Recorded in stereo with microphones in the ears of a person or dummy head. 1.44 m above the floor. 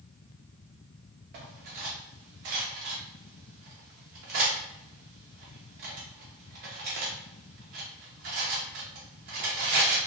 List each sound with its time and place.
1.3 s cutlery clinking: 35° right (ahead or behind), 0.6 m